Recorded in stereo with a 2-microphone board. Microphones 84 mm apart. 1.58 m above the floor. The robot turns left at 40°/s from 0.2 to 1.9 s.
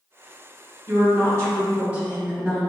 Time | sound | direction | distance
0.9 | a woman speaking | 125° right | 0.9 m